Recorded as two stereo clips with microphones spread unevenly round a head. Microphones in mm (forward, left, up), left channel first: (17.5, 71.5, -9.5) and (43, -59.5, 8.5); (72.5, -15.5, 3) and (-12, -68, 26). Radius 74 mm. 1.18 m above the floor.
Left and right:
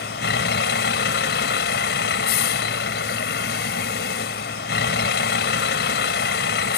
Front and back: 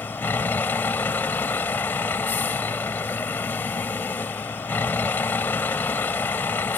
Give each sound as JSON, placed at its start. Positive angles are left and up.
{"t": 0.0, "sound": "a vehicle", "azimuth_deg": 115}